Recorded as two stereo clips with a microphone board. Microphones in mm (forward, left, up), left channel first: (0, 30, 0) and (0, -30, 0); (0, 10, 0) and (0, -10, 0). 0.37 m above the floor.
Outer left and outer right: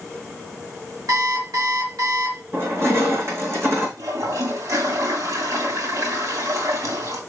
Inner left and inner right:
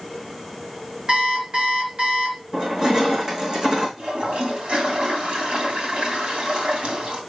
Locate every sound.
1.1 s an alarm clock: 75° right (ahead or behind), 3.5 m
2.5 s crushing: 45° right (ahead or behind), 4 m
4.0 s a toilet flushing: 65° right (ahead or behind), 3 m